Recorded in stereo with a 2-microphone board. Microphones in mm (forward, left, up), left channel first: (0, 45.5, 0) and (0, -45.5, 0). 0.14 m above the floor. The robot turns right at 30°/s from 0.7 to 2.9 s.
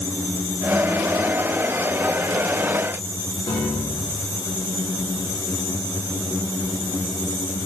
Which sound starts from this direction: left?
A piano, at 3.5 s.